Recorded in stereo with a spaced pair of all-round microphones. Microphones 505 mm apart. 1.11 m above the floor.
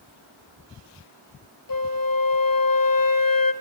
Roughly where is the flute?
Left.